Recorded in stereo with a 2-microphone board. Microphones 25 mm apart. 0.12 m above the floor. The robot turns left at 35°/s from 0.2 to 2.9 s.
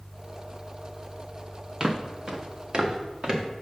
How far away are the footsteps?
About 0.9 m.